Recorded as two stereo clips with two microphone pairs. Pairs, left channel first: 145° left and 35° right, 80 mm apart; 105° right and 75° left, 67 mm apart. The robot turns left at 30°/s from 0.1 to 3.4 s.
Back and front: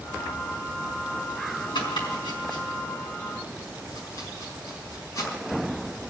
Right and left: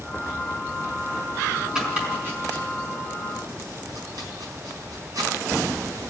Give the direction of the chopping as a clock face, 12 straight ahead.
7 o'clock.